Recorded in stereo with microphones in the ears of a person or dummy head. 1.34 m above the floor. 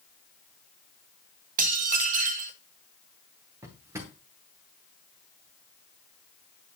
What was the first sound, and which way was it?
Dishes clattering, 45° right (ahead or behind).